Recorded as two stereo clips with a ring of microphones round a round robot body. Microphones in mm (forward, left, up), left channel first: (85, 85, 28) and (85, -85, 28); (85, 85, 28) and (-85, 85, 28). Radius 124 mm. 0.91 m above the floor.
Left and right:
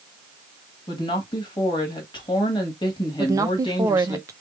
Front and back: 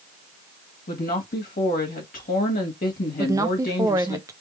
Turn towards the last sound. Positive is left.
turn(degrees=-135)